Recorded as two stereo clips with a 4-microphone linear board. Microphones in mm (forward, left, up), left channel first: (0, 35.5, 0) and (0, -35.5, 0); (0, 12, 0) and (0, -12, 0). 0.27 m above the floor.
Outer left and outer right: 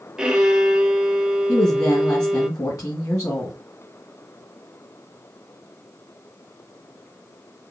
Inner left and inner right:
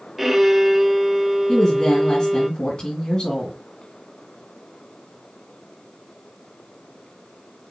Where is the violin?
10° right (ahead or behind), 0.9 m.